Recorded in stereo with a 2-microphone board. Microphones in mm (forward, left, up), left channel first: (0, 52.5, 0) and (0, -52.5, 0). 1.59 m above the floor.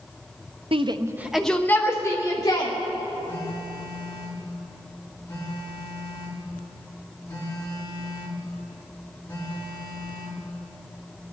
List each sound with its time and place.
0.7 s a shout: 55° right (ahead or behind), 0.6 m; by 2.7 s 35° left (ahead or behind), 1.7 m
3.3 s a phone buzzing: 20° left (ahead or behind), 3.5 m